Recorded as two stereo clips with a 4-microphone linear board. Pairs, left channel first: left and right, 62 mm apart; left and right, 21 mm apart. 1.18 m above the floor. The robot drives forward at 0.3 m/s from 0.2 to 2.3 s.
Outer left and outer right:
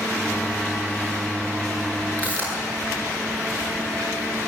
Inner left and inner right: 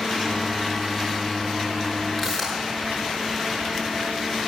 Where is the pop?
25° left (ahead or behind), 10 m.